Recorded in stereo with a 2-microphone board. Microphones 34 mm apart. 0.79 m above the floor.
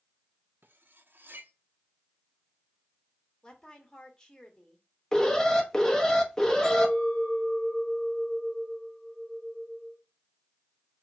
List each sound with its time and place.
0.6 s cutlery clinking: 75° right (ahead or behind), 0.5 m
3.4 s a woman speaking: 20° left (ahead or behind), 1.4 m
5.1 s an alarm: 15° left (ahead or behind), 0.8 m
6.6 s a clink: 20° left (ahead or behind), 2.5 m